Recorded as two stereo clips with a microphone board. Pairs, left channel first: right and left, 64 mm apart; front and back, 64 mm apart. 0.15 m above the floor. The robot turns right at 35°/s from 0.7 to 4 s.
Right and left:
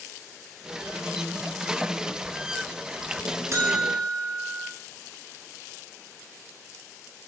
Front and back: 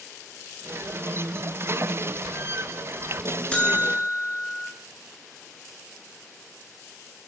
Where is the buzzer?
65° left, 0.7 m; by 4.7 s 85° left, 0.7 m.